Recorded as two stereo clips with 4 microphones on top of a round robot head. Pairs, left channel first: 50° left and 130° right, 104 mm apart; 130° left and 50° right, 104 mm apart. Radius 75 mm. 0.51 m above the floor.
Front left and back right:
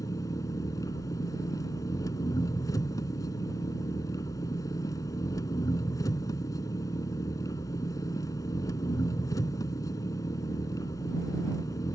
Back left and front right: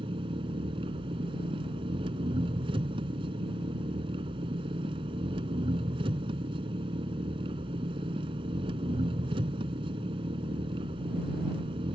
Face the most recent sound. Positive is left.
turn(degrees=-10)